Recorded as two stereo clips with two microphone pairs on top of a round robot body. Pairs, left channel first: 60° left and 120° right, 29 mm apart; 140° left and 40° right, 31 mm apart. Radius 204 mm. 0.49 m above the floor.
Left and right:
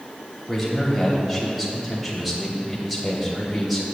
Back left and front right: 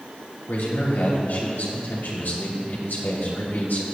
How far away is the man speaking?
About 3 m.